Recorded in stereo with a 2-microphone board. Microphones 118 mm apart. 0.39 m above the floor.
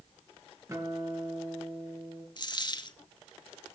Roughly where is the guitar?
Right.